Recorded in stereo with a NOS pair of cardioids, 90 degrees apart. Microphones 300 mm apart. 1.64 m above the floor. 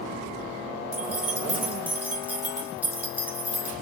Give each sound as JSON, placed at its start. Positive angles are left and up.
{"t": 0.9, "sound": "keys jangling", "azimuth_deg": -5, "distance_m": 2.0}